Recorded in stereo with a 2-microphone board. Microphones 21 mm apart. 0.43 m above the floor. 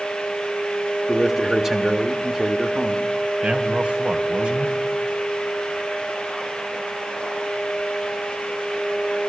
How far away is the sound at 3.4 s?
About 2.5 m.